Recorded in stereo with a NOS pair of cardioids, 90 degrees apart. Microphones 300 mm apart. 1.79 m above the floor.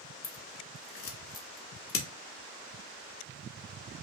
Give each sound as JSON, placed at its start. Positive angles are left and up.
{"t": 0.2, "sound": "scissors", "azimuth_deg": 50, "distance_m": 1.0}